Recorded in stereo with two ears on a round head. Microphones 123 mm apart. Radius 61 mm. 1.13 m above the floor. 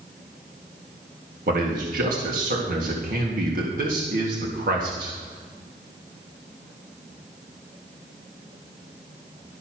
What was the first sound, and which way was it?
A man speaking, 75° right (ahead or behind).